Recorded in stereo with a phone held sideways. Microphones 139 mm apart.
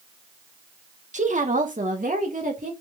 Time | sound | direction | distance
1.1 | a woman speaking | 60° right (ahead or behind) | 1.4 m